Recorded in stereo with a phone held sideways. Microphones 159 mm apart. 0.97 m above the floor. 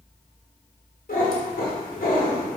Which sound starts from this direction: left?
A cat meowing, at 1.1 s.